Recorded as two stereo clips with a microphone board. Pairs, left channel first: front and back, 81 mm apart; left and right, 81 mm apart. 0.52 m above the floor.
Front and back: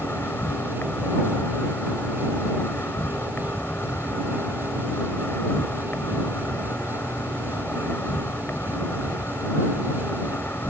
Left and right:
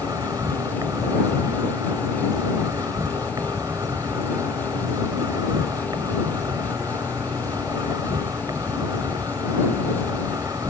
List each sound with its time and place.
0.0 s an insect: 60° right